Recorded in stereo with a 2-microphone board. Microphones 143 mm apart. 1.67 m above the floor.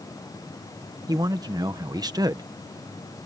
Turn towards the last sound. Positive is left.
turn(degrees=-25)  # may be behind; listen again after turning